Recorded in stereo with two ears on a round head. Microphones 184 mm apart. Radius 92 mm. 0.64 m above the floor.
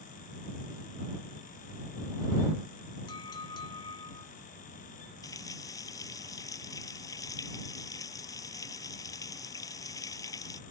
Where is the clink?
20° left (ahead or behind).